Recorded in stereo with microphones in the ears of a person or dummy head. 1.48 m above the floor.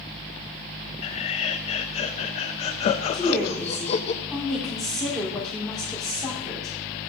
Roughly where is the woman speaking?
Centre.